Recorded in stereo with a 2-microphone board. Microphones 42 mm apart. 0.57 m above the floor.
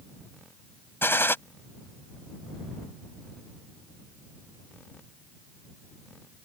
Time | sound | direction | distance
1.0 | a gunshot | 65° left (ahead or behind) | ?